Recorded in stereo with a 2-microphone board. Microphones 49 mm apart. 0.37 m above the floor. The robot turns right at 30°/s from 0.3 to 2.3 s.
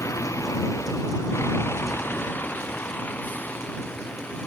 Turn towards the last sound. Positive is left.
turn(degrees=35)  # may be behind; listen again after turning